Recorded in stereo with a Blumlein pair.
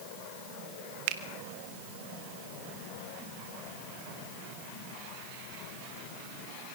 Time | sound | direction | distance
1.1 | a finger snap | 45° right | 1.5 m